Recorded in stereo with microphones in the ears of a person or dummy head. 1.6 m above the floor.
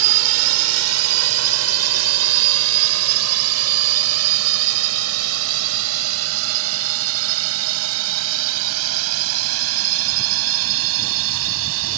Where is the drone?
80° right.